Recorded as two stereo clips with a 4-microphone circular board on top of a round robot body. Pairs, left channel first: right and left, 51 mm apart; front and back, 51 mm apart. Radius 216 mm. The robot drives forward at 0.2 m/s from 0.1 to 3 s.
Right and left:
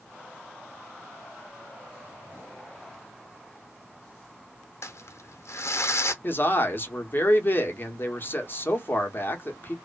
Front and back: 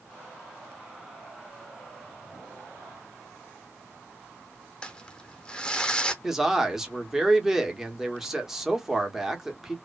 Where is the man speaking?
100° right, 1.2 m.